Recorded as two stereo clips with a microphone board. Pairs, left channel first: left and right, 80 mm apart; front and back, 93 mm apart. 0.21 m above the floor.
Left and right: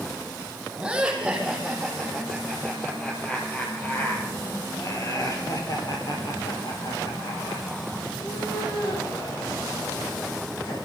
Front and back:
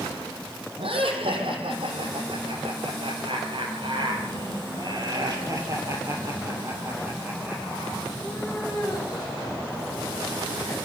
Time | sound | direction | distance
0.8 | laughter | 170° right | 7.5 m